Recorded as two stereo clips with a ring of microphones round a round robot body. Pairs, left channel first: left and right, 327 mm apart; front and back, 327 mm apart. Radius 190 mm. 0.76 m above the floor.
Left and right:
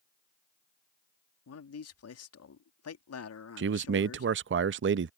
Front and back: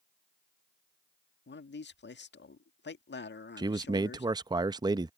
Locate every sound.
1.5 s a man speaking: 55° left
3.6 s a man speaking: 110° right